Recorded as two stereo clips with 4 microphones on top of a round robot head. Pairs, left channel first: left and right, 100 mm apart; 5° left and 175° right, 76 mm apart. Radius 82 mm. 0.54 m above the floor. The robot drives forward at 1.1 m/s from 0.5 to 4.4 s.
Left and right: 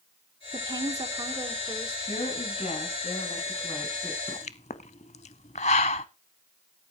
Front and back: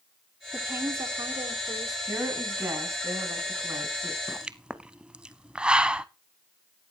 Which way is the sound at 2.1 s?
115° left.